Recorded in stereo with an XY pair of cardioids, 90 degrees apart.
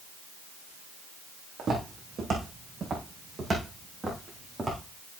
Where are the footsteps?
50° right, 4.5 m; by 4.8 s 20° right, 5 m.